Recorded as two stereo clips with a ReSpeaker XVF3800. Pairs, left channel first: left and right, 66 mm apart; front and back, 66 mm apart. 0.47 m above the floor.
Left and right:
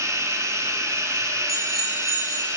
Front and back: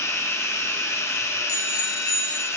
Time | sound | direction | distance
0.0 | running water | 50° right | 3 m
1.5 | a bicycle bell | straight ahead | 7 m